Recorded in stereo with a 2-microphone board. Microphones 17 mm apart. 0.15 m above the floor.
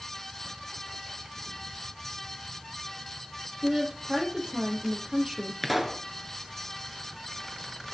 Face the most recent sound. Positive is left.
turn(degrees=-10)  # may be behind; listen again after turning